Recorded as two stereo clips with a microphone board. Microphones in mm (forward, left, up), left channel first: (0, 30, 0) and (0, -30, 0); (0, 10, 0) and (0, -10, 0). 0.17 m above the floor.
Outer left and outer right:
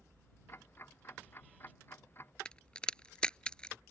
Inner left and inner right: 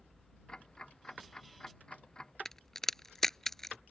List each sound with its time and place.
0.5 s ticking: 45° left (ahead or behind)
2.5 s a crack: 15° left (ahead or behind)